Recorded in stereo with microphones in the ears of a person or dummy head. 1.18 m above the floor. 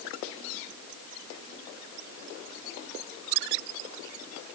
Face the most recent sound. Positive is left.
No sound to turn to.